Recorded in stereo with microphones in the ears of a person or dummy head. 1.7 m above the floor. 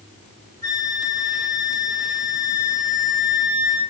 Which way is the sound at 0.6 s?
20° left (ahead or behind).